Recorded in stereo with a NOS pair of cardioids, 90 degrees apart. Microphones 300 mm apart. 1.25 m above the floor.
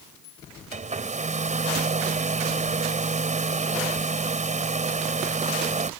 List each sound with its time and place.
0.7 s a hair dryer: 25° right